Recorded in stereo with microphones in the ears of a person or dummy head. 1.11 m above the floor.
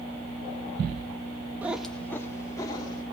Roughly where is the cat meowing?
Centre.